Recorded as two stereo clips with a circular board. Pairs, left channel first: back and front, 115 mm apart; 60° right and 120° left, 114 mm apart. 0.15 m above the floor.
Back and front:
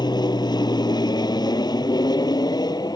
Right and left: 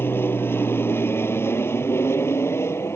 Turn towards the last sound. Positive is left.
turn(degrees=-130)